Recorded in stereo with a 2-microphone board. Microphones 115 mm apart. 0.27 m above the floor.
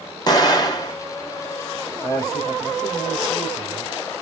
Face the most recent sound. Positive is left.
turn(degrees=35)  # may be behind; listen again after turning